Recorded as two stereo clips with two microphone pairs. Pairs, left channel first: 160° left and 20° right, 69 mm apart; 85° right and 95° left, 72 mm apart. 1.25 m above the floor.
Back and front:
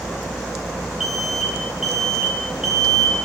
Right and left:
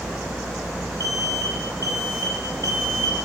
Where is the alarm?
65° left, 5.5 m.